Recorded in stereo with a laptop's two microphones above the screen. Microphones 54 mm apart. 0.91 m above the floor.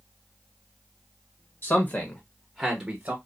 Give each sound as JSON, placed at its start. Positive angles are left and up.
{"t": 1.6, "sound": "a man speaking", "side_deg": 40, "distance_m": 1.2}